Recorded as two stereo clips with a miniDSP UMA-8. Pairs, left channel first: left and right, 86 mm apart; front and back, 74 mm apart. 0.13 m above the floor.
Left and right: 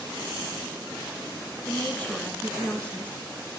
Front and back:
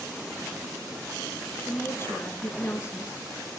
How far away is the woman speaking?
About 1.5 m.